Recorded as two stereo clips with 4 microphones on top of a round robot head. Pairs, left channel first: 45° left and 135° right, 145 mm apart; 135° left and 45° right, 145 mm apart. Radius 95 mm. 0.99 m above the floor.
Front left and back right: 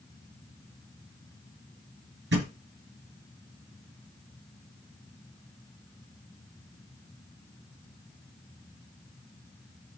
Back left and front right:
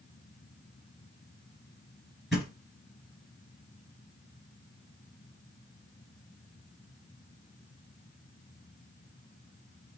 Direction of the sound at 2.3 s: 135° right.